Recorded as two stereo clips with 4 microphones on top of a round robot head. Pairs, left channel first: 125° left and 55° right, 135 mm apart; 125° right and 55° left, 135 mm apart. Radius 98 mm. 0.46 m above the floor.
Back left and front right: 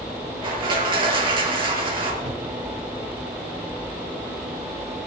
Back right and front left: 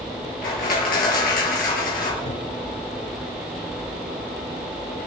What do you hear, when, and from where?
0.4 s crushing: 110° right, 5.5 m
2.2 s a cupboard door: 100° right, 8 m